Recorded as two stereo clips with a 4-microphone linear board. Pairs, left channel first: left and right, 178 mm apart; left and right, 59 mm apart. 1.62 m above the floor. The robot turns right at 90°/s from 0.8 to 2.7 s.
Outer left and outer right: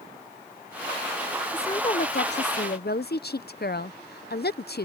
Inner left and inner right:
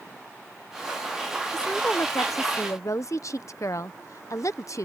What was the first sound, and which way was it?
A woman speaking, 10° left.